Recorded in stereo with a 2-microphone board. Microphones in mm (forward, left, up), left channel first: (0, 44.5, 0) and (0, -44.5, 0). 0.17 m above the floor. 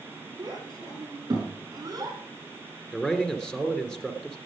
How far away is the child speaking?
About 9 m.